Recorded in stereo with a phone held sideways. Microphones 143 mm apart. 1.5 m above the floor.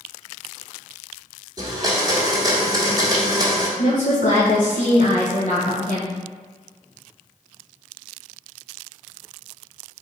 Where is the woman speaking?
60° left (ahead or behind), 0.8 m.